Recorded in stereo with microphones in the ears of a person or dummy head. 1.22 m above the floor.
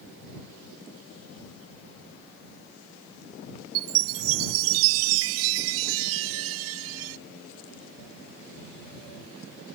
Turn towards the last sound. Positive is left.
turn(degrees=-70)  # may be behind; listen again after turning